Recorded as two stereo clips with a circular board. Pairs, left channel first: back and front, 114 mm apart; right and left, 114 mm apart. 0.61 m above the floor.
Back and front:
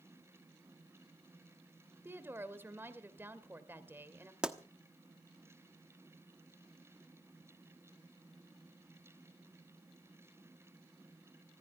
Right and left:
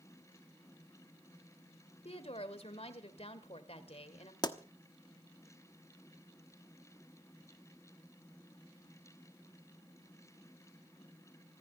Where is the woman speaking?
70° right, 2.0 m.